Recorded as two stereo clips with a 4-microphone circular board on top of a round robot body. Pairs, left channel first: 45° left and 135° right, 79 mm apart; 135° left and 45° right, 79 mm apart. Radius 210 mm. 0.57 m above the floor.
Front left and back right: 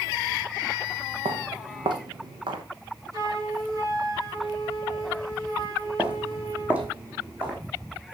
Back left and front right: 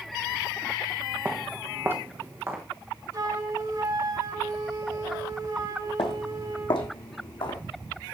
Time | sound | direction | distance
1.2 | footsteps | 115° right | 1.3 m
3.1 | a flute | 85° right | 5.5 m
6.0 | footsteps | 150° left | 1.8 m